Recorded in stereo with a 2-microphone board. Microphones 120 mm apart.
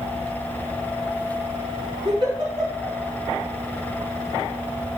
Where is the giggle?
40° right (ahead or behind), 4 m.